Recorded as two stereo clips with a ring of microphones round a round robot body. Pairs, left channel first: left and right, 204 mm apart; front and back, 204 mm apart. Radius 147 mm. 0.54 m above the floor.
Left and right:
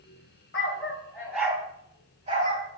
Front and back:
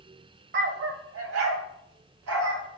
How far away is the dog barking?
About 1.2 m.